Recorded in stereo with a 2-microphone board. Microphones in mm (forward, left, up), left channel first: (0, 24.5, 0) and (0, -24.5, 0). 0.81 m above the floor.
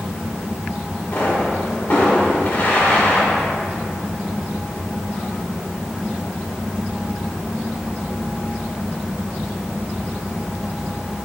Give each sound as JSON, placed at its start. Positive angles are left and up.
{"t": 1.1, "sound": "a pop", "side_deg": 45, "distance_m": 2.5}